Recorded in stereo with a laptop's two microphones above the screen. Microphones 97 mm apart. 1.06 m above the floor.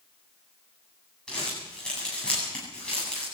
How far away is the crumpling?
About 8.5 m.